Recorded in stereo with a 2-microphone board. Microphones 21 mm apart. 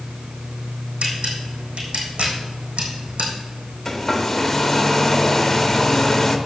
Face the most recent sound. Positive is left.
turn(degrees=15)  # may be behind; listen again after turning